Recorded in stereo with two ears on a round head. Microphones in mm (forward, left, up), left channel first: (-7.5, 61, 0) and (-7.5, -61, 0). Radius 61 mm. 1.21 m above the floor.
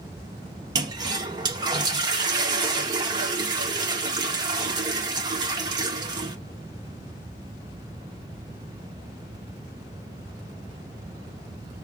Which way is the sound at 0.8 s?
30° right (ahead or behind).